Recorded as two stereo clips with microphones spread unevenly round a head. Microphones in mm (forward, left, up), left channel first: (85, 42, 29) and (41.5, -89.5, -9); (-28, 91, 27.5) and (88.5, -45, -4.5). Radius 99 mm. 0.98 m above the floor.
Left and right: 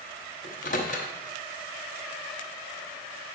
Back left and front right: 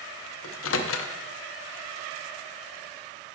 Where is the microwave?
120° left, 0.7 m.